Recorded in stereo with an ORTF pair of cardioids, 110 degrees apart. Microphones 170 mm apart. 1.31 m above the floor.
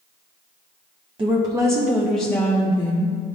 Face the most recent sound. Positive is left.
turn(degrees=40)